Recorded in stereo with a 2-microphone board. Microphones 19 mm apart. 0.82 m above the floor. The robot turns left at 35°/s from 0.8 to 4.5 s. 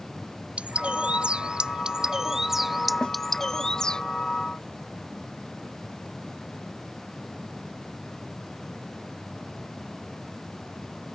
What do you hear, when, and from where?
0.6 s a bird: 105° right; by 4.0 s 140° left
3.0 s a snare drum: 40° left (ahead or behind); by 3.2 s 50° left (ahead or behind)